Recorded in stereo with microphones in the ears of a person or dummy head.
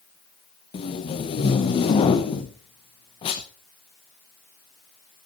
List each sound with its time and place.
0.7 s tape being pulled: 25° left (ahead or behind), 0.9 m